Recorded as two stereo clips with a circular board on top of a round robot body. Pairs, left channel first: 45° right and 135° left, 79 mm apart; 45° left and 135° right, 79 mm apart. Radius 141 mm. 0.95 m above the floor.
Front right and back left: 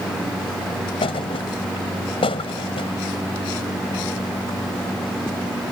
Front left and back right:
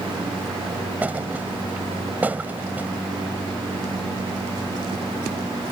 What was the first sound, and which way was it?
A thud, 65° right.